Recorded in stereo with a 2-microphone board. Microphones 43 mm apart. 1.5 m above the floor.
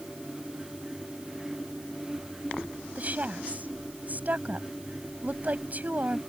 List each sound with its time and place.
3.0 s a woman speaking: 40° right (ahead or behind)